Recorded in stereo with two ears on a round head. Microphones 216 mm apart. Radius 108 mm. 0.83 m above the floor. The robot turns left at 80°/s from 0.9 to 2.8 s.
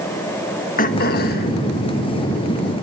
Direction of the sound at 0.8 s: 115° left.